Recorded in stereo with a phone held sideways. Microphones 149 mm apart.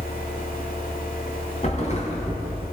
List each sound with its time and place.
0.0 s a fan: 75° left (ahead or behind), 1.4 m
1.6 s a thud: 55° left (ahead or behind), 2.5 m